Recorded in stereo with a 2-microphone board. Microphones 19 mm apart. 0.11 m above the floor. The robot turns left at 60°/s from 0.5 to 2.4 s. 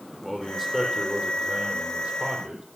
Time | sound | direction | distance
0.2 | a man speaking | 5° left | 4 m